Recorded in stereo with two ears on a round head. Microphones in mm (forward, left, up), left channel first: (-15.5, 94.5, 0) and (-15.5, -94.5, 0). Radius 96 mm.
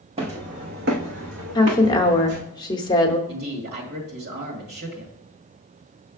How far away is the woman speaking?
About 0.9 m.